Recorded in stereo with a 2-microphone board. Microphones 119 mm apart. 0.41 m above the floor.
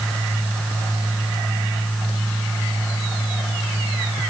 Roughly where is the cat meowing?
I don't hear a cat meowing.